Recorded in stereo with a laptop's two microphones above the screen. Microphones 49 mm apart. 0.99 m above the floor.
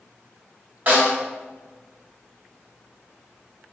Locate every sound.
0.9 s a snare drum: 40° right (ahead or behind), 1.7 m